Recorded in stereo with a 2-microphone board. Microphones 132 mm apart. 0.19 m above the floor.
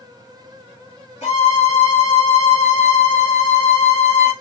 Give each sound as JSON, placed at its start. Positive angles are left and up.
{"t": 1.2, "sound": "a violin", "side_deg": 60, "distance_m": 2.5}